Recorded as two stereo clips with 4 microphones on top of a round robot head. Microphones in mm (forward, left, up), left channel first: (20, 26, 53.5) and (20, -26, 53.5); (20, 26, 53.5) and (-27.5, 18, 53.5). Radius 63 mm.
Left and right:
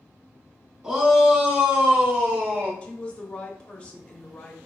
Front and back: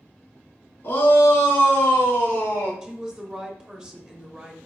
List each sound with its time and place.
0.8 s a shout: 20° right, 2.5 m; by 2.7 s 40° right, 3 m
2.8 s a woman speaking: 140° left, 1.1 m